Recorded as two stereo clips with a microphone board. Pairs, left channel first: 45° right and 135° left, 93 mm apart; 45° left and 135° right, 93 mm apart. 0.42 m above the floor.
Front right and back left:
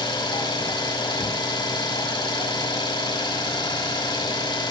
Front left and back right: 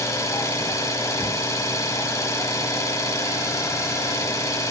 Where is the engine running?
10° right, 1.1 m.